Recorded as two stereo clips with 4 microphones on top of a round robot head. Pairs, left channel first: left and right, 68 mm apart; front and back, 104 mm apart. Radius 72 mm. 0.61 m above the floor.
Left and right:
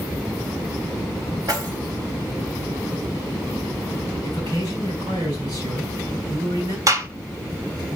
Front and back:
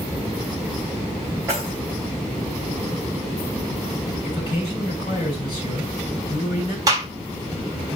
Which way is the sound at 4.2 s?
55° right.